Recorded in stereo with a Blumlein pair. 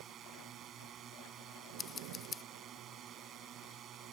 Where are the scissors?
20° left.